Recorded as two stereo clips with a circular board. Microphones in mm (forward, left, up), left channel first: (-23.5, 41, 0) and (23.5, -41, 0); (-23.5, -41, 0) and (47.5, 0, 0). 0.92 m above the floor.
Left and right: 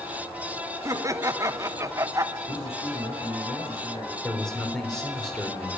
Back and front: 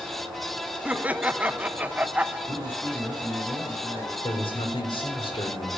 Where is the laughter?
35° right, 0.9 m.